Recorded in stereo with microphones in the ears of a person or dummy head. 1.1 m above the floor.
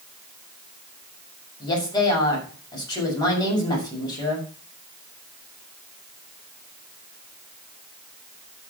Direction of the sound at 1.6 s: 25° left (ahead or behind).